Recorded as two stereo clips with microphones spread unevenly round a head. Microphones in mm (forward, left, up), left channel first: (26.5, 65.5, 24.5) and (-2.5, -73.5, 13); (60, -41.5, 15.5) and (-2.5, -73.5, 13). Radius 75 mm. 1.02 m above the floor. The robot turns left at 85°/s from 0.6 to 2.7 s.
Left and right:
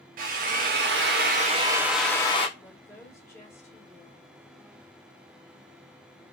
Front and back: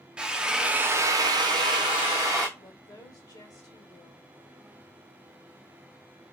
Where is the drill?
75° right, 0.8 m; by 2.5 s 125° left, 0.8 m.